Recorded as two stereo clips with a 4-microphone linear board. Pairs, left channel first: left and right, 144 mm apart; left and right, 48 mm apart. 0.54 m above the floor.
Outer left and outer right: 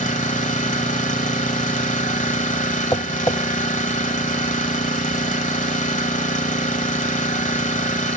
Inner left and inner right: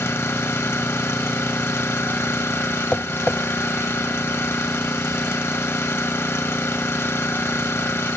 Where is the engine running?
60° left (ahead or behind), 1.4 m.